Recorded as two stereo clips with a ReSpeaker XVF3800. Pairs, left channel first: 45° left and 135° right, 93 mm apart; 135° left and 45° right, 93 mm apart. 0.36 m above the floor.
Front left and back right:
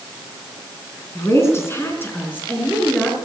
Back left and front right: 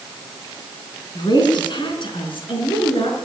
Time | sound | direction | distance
1.1 | a woman speaking | 100° left | 3.5 m